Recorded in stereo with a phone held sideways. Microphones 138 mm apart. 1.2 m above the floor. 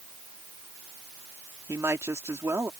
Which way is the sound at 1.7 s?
20° right (ahead or behind).